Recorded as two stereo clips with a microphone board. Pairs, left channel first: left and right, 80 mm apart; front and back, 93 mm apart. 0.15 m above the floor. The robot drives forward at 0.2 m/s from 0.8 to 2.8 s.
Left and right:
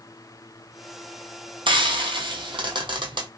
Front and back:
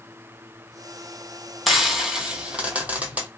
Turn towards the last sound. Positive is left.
turn(degrees=-105)